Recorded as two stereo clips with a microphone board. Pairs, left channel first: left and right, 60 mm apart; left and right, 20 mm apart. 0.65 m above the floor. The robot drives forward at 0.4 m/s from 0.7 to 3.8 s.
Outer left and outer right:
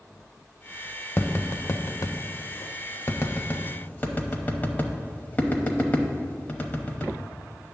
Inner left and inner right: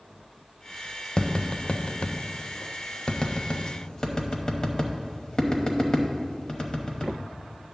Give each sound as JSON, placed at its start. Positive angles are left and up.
{"t": 1.2, "sound": "tapping", "side_deg": 40, "distance_m": 0.6}